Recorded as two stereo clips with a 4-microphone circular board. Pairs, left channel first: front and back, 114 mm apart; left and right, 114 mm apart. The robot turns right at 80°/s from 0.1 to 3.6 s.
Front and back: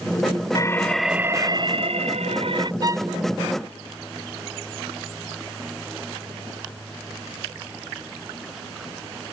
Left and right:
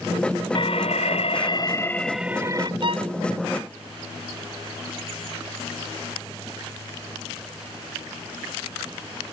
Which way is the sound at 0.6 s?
55° left.